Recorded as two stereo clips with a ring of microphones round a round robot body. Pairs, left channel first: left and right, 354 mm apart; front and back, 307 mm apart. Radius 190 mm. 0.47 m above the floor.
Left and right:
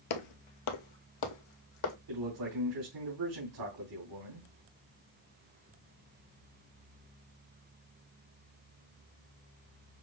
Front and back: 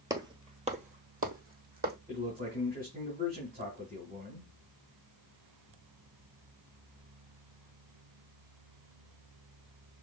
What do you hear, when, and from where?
0.1 s footsteps: 100° left, 0.8 m; by 2.0 s 120° left, 1.7 m
2.1 s a man speaking: 110° right, 3 m